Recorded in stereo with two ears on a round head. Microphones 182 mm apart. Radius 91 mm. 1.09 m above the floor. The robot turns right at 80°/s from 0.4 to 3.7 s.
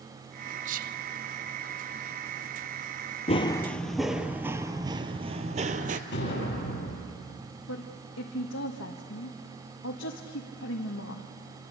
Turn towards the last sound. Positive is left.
turn(degrees=70)  # may be behind; listen again after turning